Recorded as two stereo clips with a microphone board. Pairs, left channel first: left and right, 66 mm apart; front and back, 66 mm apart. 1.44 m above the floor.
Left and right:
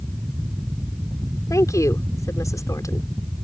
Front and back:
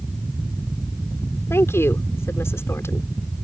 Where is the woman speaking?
50° left.